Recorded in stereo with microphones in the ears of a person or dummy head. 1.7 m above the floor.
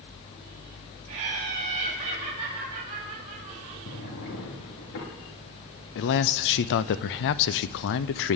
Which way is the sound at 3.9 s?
65° left (ahead or behind).